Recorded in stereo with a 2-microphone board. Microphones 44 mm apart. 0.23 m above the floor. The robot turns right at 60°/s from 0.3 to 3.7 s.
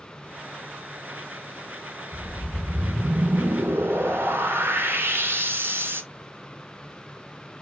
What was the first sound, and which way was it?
A whoosh, 150° left.